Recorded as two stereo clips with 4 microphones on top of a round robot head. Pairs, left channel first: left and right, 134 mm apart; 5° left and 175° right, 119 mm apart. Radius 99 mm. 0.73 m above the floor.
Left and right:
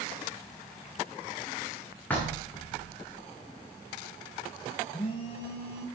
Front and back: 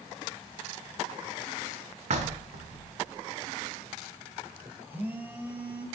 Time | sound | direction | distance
2.1 | knocking | 170° left | 1.0 m
4.9 | a phone buzzing | 115° left | 1.2 m